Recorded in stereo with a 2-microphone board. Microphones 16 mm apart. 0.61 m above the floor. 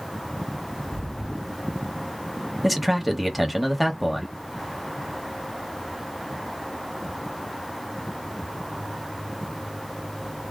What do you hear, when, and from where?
0.8 s footsteps: 50° left (ahead or behind), 1.7 m; by 2.5 s 30° left (ahead or behind), 0.8 m
2.6 s a man speaking: centre (ahead or behind), 1.0 m